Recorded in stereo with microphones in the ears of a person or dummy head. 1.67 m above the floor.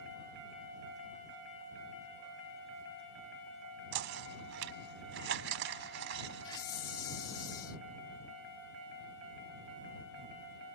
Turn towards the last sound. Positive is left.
turn(degrees=20)  # may be behind; listen again after turning